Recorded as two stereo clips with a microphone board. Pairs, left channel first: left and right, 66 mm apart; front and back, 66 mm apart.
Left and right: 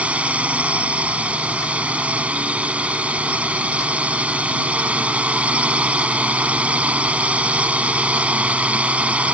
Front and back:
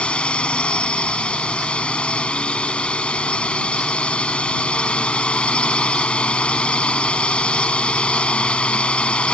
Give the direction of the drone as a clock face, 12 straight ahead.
2 o'clock.